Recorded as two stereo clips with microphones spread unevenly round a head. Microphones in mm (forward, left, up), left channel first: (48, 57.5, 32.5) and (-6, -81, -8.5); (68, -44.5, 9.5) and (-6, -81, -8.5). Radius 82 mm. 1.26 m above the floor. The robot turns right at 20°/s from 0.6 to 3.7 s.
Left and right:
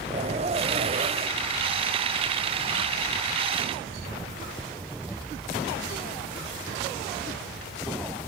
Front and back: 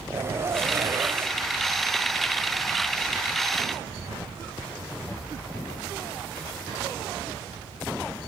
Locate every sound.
0.1 s a zipper: 125° right, 1.1 m; by 1.4 s 105° right, 1.1 m